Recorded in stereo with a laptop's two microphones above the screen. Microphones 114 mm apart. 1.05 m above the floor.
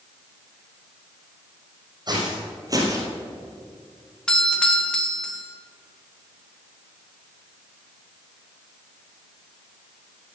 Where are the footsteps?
40° right (ahead or behind), 3 m; by 3.1 s 25° right (ahead or behind), 1.4 m.